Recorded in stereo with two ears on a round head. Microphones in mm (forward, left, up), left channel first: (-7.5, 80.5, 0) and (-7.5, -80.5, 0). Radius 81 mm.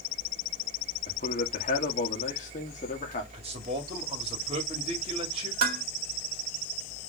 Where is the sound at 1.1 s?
40° left (ahead or behind), 1.4 m.